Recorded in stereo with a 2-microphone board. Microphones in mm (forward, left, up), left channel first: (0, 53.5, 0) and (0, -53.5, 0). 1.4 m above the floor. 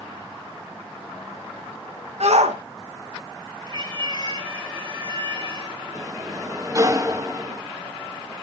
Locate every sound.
2.2 s a shout: 80° right, 1.8 m
3.7 s a cat meowing: 45° right (ahead or behind), 7.5 m
6.0 s a sliding door: 30° right (ahead or behind), 0.9 m